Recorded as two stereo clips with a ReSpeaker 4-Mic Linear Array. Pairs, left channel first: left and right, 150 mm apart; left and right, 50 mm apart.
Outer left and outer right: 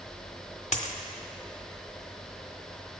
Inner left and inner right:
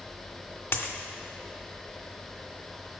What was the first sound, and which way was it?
A dropped coin, 50° left (ahead or behind).